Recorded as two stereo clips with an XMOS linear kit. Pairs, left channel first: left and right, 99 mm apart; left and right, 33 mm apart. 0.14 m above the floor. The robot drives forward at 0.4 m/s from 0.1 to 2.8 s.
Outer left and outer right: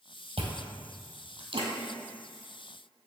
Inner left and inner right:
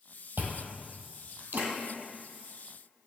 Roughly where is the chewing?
Right.